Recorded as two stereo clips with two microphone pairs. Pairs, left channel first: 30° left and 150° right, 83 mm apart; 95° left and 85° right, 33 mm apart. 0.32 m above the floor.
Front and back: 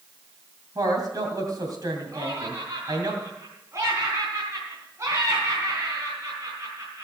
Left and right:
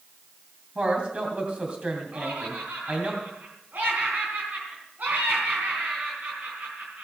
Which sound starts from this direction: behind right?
A woman speaking, at 0.8 s.